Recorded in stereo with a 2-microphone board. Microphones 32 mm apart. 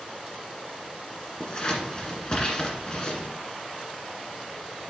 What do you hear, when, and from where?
1.4 s scissors: 30° left (ahead or behind), 1.6 m